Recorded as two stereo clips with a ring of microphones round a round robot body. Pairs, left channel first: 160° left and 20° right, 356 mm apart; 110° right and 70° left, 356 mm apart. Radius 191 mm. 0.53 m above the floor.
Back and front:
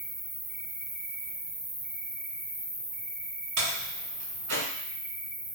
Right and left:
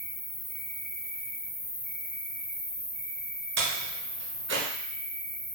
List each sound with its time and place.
0.0 s an insect: 110° right, 0.9 m
3.6 s a door slam: 10° left, 1.1 m